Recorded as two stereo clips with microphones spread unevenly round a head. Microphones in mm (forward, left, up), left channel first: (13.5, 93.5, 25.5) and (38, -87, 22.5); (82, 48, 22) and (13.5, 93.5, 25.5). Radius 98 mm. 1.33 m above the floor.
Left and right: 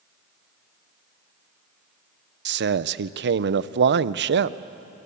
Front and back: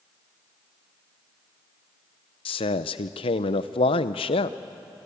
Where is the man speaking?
55° right, 0.7 m.